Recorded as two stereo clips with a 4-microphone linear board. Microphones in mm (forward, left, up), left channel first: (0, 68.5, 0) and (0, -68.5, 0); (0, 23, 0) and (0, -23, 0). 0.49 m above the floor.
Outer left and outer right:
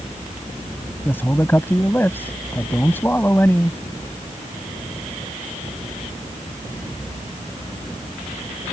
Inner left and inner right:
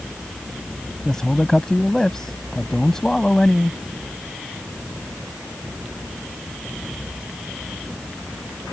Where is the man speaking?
15° left (ahead or behind).